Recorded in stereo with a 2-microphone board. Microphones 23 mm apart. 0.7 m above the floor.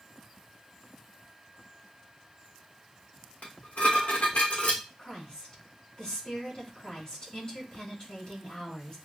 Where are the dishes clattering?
75° left (ahead or behind), 1.3 m.